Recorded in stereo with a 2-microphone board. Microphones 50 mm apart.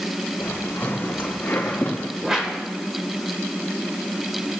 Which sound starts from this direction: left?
Footsteps, at 0.4 s.